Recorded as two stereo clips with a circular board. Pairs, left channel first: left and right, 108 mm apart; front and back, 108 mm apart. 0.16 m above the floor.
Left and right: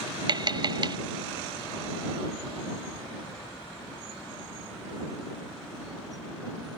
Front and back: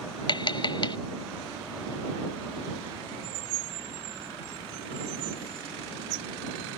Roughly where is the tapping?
Ahead right.